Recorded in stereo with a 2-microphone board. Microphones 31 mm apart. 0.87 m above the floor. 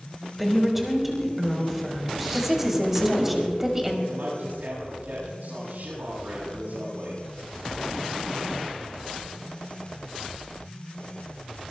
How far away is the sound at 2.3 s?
About 2.5 m.